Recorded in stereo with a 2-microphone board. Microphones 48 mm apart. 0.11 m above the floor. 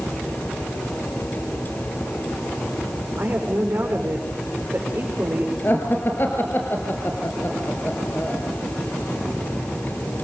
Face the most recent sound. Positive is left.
turn(degrees=50)  # may be behind; listen again after turning